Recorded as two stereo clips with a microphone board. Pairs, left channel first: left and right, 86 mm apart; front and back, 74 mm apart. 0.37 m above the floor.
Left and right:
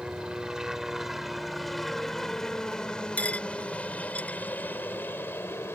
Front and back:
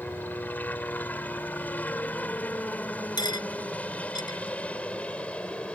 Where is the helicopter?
25° right; by 5.8 s 60° left.